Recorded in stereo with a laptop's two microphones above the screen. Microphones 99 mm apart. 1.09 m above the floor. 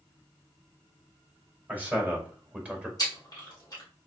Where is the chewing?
40° left (ahead or behind), 1.4 m.